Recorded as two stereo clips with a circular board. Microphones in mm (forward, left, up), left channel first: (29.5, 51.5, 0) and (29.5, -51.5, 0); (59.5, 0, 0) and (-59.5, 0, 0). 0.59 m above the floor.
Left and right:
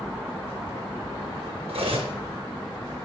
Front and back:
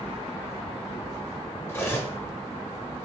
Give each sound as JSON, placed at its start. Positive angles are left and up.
{"t": 1.7, "sound": "cutlery clinking", "azimuth_deg": -70, "distance_m": 0.7}